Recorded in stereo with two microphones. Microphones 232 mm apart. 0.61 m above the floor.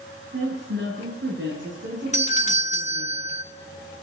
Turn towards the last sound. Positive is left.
turn(degrees=30)  # may be behind; listen again after turning